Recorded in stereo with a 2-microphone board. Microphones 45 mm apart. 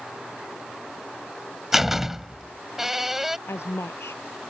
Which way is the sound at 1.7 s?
10° right (ahead or behind).